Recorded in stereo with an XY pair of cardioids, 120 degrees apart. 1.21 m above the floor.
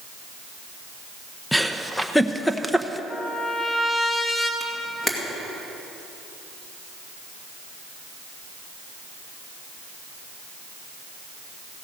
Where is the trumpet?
15° left, 2.5 m.